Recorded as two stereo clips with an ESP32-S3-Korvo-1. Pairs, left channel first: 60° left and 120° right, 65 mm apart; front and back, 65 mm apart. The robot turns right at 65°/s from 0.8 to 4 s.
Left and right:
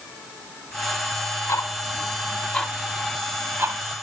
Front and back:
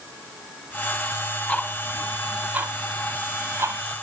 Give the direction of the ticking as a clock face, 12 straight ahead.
10 o'clock.